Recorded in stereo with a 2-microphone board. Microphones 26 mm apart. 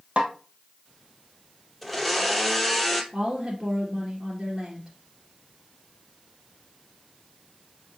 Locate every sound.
0.2 s a snare drum: 55° right (ahead or behind), 1.3 m
1.8 s a blender: centre (ahead or behind), 0.9 m
3.1 s a woman speaking: 40° right (ahead or behind), 2.0 m